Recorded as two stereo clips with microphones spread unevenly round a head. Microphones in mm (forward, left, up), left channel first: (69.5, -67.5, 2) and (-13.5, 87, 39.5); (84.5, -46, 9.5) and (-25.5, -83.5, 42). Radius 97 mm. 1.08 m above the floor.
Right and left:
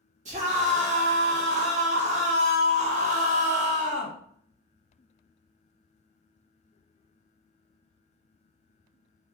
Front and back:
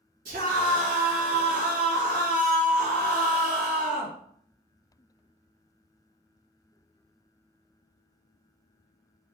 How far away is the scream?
About 1.3 m.